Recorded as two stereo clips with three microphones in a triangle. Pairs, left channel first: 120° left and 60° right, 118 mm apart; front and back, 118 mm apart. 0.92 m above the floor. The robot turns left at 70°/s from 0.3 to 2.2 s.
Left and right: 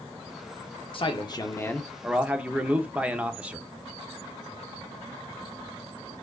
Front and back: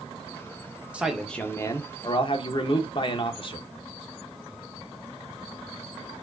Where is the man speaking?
105° left, 0.6 m; by 3.7 s 15° left, 0.6 m.